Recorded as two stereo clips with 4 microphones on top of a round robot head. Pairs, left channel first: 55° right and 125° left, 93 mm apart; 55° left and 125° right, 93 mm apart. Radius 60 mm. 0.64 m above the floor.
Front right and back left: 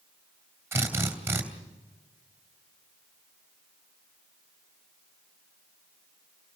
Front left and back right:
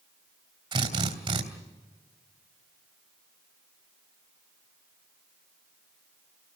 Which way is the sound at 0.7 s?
165° right.